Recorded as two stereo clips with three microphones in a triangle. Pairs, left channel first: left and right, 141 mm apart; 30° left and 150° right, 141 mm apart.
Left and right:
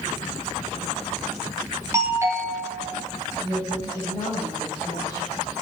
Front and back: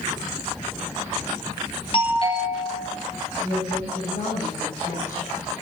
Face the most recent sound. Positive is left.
turn(degrees=30)